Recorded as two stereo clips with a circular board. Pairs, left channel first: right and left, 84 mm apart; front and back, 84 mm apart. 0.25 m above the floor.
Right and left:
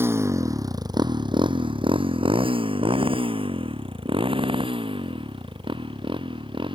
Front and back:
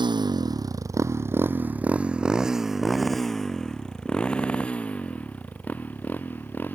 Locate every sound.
0.0 s a motorcycle: 155° left; by 6.8 s 70° left